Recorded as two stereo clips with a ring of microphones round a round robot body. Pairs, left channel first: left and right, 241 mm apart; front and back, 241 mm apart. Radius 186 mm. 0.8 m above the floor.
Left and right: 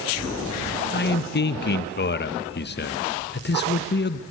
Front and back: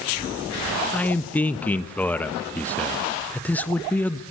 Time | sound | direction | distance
0.9 | a man speaking | 80° left | 1.0 m